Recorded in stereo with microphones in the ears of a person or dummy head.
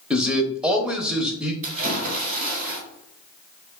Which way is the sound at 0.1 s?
5° right (ahead or behind).